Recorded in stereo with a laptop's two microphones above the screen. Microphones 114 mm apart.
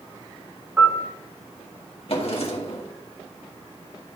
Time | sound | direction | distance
0.8 | a piano | 20° right (ahead or behind) | 2.0 m
2.1 | a drawer | 60° left (ahead or behind) | 1.4 m